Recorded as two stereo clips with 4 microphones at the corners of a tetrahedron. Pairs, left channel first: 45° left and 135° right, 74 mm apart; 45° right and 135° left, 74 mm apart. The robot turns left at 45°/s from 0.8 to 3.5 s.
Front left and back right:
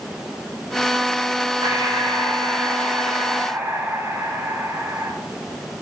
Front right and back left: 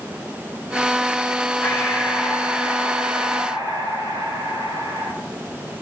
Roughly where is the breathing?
Right.